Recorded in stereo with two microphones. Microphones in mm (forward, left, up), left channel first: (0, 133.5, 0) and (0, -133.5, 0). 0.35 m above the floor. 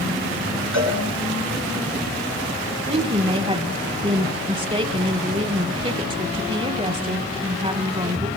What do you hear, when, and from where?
0.7 s a cowbell: 75° right (ahead or behind), 7 m
2.9 s a woman speaking: 25° right (ahead or behind), 1.0 m